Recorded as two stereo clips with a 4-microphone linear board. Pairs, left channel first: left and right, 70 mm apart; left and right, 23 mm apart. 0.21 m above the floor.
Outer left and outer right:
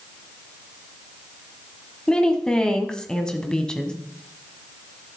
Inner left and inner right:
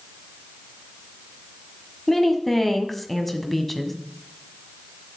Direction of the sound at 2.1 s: 10° left (ahead or behind).